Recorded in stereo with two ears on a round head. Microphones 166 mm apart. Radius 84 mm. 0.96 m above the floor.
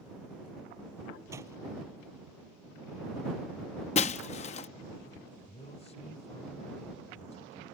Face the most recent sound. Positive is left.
turn(degrees=40)  # may be behind; listen again after turning